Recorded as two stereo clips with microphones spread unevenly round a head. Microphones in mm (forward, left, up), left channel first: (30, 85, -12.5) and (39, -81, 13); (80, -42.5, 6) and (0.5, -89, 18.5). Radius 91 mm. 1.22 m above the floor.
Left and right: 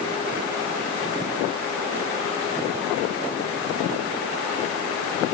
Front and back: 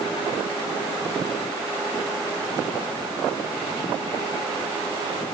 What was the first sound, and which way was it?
Only background noise.